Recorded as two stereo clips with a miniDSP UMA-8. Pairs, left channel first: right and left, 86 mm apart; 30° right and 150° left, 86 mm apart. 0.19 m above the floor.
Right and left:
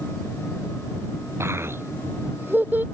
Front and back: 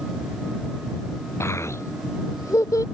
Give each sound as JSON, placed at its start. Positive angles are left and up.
{"t": 1.4, "sound": "a child speaking", "azimuth_deg": 30}